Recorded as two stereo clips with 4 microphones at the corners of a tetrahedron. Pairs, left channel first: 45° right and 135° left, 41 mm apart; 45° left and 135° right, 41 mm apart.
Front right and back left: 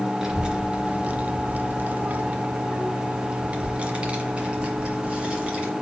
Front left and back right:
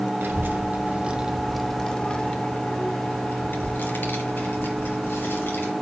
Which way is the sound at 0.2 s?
155° right.